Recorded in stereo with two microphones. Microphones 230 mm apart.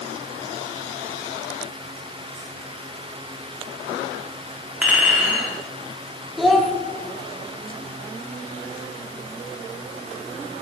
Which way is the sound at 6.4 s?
Centre (ahead or behind).